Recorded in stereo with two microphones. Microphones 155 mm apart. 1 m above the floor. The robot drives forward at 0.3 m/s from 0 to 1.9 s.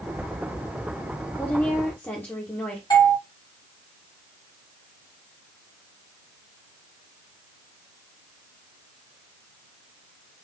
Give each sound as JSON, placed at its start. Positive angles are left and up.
{"t": 1.4, "sound": "a woman speaking", "side_deg": 10, "distance_m": 0.9}
{"t": 2.9, "sound": "a doorbell", "side_deg": 25, "distance_m": 2.0}